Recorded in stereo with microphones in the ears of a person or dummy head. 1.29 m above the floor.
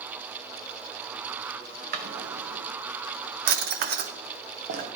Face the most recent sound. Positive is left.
turn(degrees=-50)  # may be behind; listen again after turning